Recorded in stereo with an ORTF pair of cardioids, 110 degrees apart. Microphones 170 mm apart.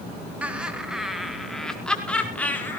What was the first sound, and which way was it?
Laughter, 10° right.